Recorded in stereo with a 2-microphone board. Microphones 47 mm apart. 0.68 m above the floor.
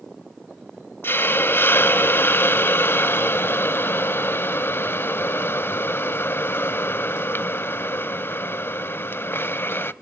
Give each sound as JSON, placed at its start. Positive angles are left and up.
{"t": 1.0, "sound": "a hiss", "side_deg": 55, "distance_m": 0.7}